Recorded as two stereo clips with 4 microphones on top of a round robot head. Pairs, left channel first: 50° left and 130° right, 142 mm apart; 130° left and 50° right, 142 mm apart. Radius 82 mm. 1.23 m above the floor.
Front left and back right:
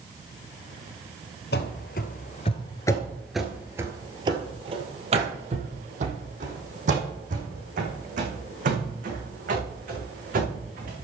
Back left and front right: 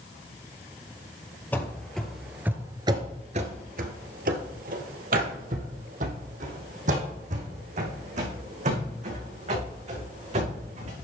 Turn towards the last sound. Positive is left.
turn(degrees=-95)